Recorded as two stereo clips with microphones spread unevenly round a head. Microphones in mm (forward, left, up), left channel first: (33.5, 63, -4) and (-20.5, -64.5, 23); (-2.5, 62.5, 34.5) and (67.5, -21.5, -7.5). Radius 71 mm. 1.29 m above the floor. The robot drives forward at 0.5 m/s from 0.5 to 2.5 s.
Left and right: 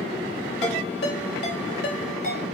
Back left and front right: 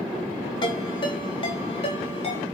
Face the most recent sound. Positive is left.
turn(degrees=100)